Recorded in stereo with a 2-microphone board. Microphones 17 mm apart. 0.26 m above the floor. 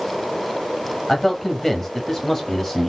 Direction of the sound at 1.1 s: 20° left (ahead or behind).